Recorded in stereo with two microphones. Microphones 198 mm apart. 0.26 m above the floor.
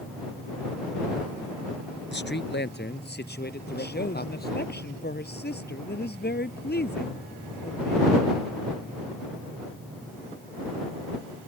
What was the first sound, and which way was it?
A man speaking, 65° left (ahead or behind).